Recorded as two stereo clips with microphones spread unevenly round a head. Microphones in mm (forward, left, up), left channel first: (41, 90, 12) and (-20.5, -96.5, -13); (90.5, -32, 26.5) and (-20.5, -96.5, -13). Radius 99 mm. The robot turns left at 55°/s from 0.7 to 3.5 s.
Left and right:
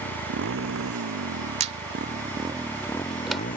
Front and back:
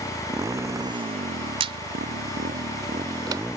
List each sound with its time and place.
0.0 s a motorcycle: 85° right; by 3.6 s 125° left
1.6 s a squeak: 125° right; by 3.4 s 135° left